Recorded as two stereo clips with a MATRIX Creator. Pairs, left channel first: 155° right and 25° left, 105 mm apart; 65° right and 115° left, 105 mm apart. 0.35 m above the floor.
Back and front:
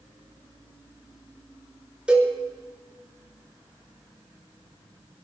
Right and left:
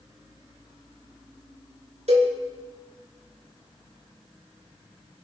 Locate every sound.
2.1 s a cowbell: 105° left, 4 m